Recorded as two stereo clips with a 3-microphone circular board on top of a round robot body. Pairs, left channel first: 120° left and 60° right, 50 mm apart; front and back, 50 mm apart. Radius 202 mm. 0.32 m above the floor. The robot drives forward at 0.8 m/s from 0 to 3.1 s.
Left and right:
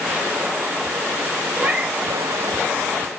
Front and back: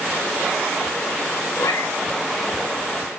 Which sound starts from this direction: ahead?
A cat meowing, at 1.6 s.